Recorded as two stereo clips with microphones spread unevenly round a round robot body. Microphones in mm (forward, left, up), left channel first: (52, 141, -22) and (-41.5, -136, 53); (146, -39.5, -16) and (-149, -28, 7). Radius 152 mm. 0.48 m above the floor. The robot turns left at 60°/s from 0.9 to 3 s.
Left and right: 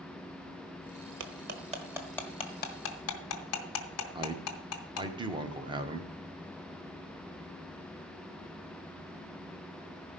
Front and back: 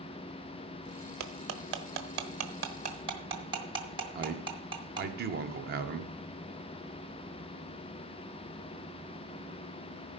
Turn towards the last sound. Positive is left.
turn(degrees=165)